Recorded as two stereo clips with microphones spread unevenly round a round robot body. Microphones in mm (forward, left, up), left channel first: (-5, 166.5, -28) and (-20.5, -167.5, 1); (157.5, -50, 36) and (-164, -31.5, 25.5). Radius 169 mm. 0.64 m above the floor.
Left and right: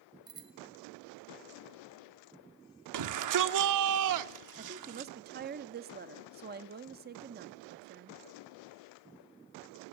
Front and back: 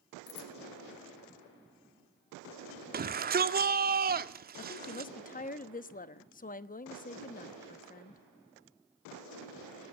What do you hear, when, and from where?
0.3 s a bicycle bell: 10° right, 2 m
2.9 s a shout: 125° right, 1.6 m
4.6 s a woman speaking: 45° right, 1.0 m